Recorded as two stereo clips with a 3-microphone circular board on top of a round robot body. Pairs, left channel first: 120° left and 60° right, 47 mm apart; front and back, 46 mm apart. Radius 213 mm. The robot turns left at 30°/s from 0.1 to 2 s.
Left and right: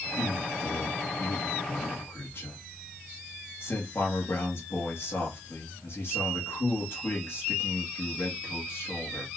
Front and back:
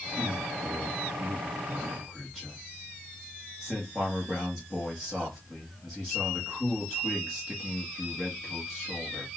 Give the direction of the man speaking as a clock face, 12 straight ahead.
7 o'clock.